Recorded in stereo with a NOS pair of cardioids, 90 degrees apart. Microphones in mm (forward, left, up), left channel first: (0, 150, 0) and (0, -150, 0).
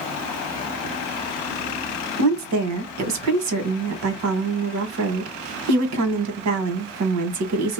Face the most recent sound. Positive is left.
turn(degrees=-65)